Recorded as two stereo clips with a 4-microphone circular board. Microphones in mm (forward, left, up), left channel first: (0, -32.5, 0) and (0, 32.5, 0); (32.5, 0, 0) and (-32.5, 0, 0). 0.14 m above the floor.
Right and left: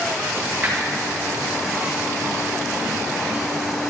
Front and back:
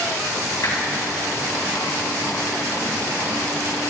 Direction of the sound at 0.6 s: 25° left.